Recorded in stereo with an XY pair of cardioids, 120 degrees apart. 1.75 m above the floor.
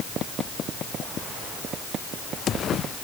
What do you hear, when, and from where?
Only background noise.